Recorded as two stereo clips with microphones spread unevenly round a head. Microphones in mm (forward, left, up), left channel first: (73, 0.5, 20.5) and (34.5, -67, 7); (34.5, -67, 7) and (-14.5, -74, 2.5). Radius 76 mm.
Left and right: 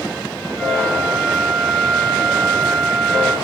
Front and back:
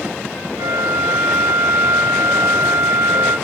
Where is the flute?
145° left, 0.6 m.